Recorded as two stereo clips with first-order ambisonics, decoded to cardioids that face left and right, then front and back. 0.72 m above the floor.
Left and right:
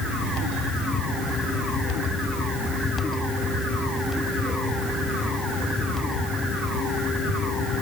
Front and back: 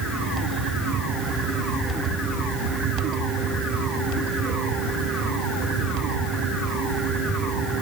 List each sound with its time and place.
Only background noise.